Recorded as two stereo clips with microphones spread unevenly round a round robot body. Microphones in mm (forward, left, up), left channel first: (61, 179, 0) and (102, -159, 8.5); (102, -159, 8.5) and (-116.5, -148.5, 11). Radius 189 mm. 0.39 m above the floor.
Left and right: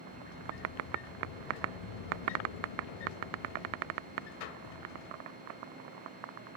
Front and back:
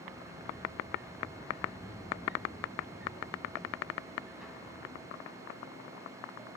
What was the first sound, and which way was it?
A sliding door, 90° left.